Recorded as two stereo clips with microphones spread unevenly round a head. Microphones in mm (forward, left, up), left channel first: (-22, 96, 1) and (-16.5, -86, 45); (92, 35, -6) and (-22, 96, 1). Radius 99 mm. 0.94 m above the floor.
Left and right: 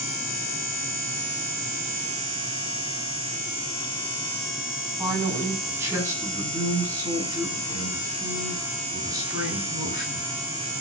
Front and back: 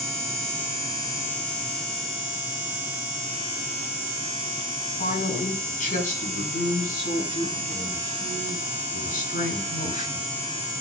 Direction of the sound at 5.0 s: 10° right.